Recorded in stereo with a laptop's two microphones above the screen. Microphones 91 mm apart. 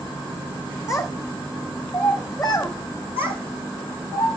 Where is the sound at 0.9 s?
40° left (ahead or behind), 1.5 m.